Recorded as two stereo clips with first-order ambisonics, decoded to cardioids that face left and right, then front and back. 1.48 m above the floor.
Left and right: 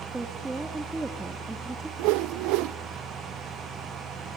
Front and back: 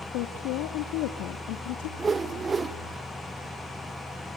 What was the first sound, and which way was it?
A woman speaking, 10° right.